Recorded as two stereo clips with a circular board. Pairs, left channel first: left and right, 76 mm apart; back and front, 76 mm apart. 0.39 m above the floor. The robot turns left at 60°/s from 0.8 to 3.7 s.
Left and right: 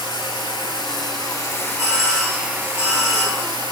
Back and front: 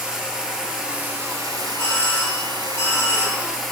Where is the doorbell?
100° right, 3 m; by 3.4 s 160° left, 3 m.